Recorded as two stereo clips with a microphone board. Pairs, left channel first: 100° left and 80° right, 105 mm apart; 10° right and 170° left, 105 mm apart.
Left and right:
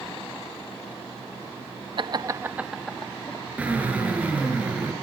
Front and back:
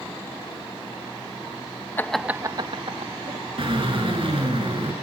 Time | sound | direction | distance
2.0 | laughter | 75° right | 0.7 m
3.6 | a drill | 155° right | 6.5 m